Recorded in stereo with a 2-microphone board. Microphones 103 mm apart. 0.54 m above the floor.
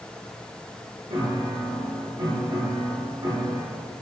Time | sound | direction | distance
1.1 | a piano | 50° right (ahead or behind) | 0.8 m